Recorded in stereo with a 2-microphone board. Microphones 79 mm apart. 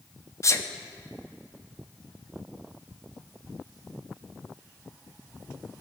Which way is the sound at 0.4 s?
40° left (ahead or behind).